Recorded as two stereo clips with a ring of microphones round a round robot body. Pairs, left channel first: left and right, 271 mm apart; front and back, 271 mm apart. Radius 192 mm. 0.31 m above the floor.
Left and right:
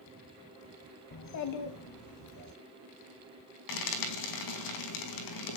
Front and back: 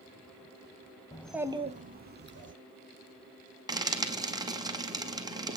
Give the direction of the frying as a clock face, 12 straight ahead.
9 o'clock.